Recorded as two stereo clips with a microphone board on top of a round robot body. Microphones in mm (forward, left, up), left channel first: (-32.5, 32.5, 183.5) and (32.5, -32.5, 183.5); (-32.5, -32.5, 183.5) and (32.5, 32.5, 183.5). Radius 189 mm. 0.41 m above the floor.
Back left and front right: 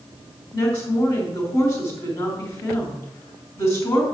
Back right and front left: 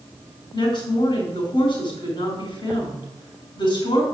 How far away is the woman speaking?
About 4 m.